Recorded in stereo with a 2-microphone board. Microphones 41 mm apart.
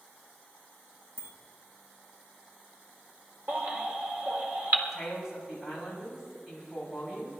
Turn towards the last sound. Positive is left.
turn(degrees=-5)  # may be behind; listen again after turning